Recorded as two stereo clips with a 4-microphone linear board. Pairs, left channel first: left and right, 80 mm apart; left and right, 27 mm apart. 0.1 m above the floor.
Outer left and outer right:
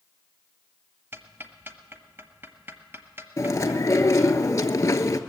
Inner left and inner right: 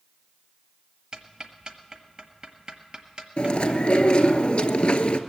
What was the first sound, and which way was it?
Ticking, 30° right (ahead or behind).